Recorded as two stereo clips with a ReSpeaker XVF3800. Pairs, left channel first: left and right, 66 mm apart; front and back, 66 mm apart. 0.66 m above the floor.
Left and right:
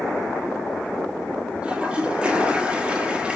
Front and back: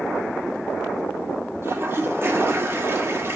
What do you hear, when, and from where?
1.6 s a toilet flushing: 155° right, 1.5 m